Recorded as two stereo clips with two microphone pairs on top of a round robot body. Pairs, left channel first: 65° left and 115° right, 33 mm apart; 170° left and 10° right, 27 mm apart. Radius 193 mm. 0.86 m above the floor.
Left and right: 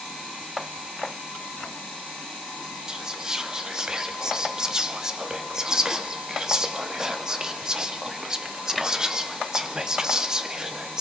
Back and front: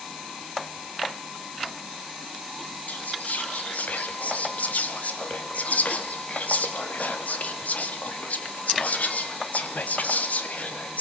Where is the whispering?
175° left, 2.5 m.